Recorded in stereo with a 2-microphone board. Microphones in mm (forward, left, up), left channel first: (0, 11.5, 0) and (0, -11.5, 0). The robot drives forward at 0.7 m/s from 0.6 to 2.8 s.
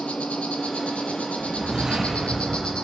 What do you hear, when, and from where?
0.0 s an insect: 70° left (ahead or behind), 1.0 m; by 2.8 s 40° left (ahead or behind), 1.5 m
1.4 s a whoosh: 45° right (ahead or behind), 5 m; by 2.7 s 40° right (ahead or behind), 6 m